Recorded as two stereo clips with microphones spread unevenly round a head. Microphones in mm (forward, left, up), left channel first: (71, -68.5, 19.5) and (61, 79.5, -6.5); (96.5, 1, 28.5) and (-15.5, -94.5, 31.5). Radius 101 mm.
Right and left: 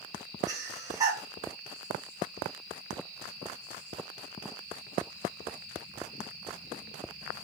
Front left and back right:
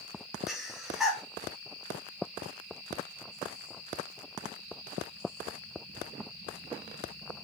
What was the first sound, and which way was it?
Breathing, 130° left.